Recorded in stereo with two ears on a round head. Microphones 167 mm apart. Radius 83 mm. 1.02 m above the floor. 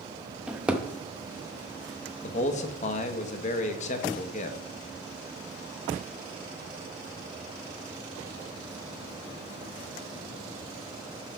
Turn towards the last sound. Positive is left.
turn(degrees=40)  # may be behind; listen again after turning